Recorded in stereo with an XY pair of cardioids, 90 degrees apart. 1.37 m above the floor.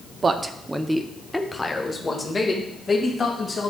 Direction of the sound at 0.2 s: 45° right.